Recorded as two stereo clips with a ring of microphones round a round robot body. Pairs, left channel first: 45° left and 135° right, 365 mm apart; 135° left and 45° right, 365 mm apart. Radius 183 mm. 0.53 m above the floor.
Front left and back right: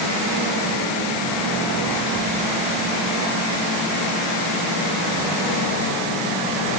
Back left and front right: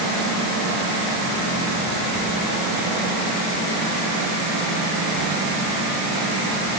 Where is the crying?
No crying in this recording.